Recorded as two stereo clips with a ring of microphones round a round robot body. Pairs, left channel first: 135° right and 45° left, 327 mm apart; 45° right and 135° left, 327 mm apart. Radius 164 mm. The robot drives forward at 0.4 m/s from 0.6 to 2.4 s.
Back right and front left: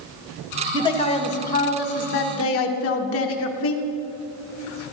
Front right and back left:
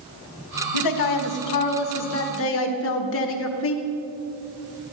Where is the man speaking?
60° right, 1.4 m; by 3.8 s 90° right, 1.2 m.